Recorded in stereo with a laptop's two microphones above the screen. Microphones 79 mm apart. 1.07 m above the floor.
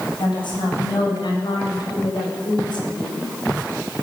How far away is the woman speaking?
About 6.5 m.